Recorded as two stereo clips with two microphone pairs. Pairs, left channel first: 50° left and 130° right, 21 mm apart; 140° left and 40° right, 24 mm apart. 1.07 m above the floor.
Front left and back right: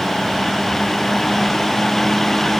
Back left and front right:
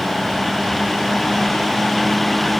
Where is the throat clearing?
No throat clearing in this recording.